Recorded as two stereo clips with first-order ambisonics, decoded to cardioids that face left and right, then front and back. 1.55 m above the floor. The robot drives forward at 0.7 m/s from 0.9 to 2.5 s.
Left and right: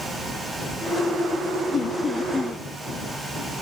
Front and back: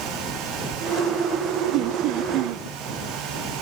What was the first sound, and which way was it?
Laughter, 155° left.